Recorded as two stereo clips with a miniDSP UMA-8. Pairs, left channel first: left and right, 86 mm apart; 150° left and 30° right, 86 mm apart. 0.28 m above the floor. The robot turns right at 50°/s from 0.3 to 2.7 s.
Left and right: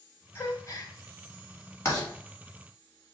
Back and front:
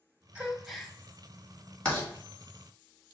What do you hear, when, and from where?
0.3 s a gasp: 40° left, 0.7 m; by 0.9 s 65° left, 0.7 m
1.9 s writing: 85° left, 1.7 m; by 2.1 s 95° left, 1.7 m